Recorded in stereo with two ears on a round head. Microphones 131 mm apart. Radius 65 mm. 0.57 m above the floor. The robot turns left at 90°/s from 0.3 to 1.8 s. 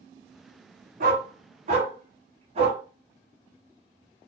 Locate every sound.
1.0 s a dog barking: 60° right (ahead or behind), 1.8 m; by 2.8 s 45° right (ahead or behind), 1.8 m